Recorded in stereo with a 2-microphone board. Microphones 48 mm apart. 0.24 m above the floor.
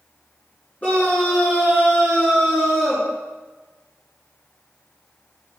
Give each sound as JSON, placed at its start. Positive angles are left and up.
{"t": 0.8, "sound": "a scream", "side_deg": 30, "distance_m": 3.0}